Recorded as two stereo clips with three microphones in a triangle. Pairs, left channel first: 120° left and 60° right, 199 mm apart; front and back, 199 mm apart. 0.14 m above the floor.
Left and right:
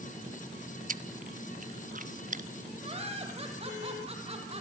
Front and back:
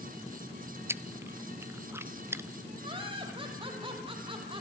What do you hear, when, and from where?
0.9 s chewing: 100° right, 0.7 m
2.8 s laughter: 115° right, 6 m